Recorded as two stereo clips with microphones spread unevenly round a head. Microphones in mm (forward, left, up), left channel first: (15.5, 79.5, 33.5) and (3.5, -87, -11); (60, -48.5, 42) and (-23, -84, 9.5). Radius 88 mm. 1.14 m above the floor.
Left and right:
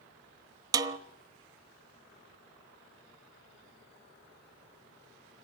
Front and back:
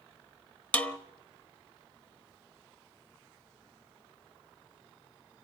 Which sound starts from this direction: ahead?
A snare drum, at 0.7 s.